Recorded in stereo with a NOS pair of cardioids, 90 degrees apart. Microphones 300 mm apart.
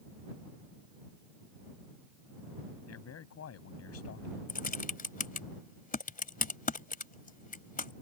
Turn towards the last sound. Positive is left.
turn(degrees=30)